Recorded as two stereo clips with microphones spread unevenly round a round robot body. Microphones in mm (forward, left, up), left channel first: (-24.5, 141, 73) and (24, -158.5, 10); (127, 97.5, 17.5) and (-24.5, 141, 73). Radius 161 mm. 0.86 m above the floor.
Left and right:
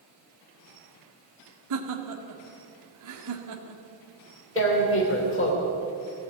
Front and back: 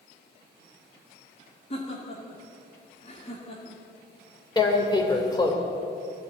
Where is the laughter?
65° right, 2 m.